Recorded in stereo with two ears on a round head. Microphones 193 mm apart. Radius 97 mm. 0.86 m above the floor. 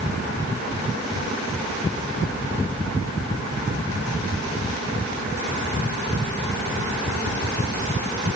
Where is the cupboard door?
I don't hear a cupboard door.